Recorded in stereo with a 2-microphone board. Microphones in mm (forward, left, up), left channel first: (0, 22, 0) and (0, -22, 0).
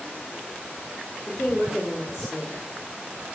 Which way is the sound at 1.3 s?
25° left (ahead or behind).